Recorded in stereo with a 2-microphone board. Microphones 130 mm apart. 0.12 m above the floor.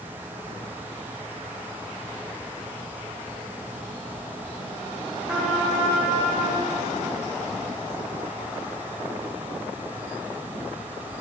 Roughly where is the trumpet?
Centre.